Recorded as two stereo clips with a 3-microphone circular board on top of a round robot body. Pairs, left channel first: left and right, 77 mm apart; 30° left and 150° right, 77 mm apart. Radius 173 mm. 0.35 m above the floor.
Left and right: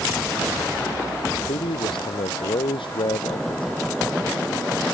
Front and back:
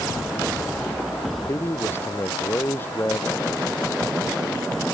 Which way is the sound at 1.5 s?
90° left.